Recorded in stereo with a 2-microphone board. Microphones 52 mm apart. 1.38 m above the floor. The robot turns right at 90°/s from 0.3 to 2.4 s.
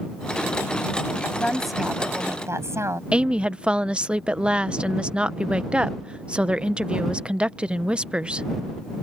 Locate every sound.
1.2 s a woman speaking: 140° left; by 3.0 s 115° right
3.1 s a woman speaking: 20° right (ahead or behind)